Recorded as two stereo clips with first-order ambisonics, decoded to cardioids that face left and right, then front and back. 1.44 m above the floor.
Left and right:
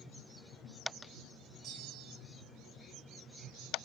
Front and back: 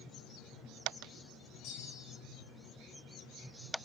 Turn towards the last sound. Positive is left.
turn(degrees=-35)